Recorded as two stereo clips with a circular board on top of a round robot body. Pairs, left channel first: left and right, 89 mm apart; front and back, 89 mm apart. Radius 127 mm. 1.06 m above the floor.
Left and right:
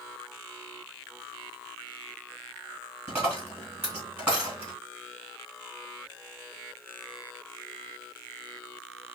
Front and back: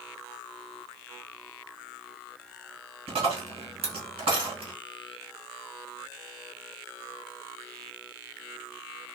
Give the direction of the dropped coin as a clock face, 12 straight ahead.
5 o'clock.